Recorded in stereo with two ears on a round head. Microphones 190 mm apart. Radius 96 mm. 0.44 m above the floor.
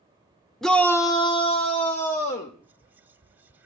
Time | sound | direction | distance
0.6 | a shout | centre (ahead or behind) | 0.8 m
2.6 | whispering | 10° right (ahead or behind) | 0.8 m